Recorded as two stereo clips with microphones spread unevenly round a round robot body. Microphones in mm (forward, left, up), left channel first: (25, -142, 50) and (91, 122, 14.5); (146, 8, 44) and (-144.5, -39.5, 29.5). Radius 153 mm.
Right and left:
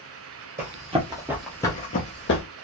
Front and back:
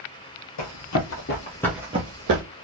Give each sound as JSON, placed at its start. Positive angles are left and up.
{"t": 0.6, "sound": "running footsteps", "azimuth_deg": 10, "distance_m": 1.4}